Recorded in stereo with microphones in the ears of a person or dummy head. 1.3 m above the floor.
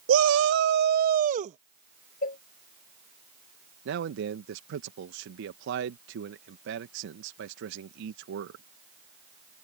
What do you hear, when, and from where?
0.1 s a shout: 80° right; by 1.6 s 40° right (ahead or behind)
2.2 s a cowbell: 50° left (ahead or behind)
3.9 s a man speaking: 75° right (ahead or behind)